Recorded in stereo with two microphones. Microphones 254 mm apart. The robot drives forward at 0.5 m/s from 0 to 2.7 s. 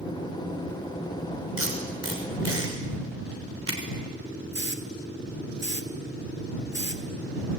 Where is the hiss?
45° right (ahead or behind), 1.9 m.